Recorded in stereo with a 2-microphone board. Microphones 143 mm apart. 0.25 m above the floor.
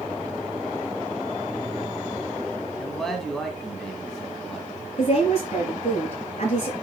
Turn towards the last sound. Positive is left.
turn(degrees=55)  # may be behind; listen again after turning